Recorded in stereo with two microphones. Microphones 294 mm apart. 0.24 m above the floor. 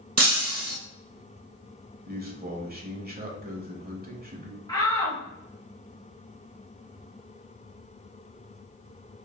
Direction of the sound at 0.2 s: 55° right (ahead or behind).